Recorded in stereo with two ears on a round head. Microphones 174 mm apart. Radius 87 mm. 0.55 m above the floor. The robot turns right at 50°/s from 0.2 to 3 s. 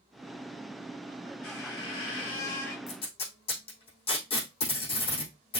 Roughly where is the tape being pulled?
Left.